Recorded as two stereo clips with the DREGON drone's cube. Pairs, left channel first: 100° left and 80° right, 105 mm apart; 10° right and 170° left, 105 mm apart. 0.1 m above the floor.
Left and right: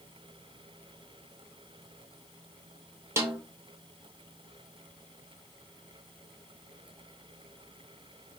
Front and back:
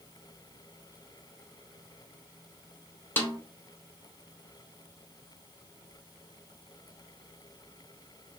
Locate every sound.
3.2 s a snare drum: 55° right, 0.8 m